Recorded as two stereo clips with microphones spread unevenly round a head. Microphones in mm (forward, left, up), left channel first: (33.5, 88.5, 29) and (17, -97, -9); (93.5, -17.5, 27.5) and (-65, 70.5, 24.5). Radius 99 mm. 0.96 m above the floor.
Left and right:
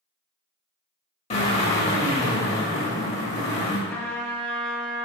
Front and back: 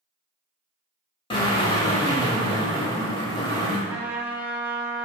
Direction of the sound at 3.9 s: 85° left.